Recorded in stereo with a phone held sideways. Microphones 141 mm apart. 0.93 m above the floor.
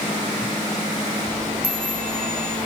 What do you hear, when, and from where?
1.6 s a chime: 90° right, 6.5 m